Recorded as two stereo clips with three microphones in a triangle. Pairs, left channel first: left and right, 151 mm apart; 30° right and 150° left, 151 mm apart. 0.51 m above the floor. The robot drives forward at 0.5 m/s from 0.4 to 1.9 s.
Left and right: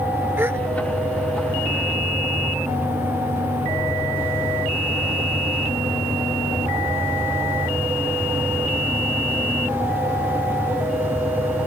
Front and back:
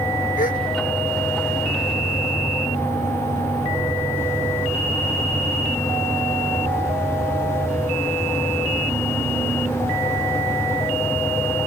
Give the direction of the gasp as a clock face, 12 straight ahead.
12 o'clock.